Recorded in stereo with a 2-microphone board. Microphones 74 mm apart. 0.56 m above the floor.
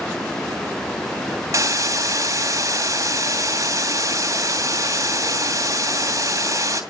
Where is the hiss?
45° right (ahead or behind), 2.5 m.